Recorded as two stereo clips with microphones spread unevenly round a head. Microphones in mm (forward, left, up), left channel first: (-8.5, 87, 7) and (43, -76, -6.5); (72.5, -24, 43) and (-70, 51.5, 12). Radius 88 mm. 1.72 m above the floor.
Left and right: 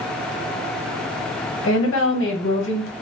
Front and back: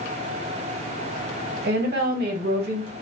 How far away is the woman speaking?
About 1.3 m.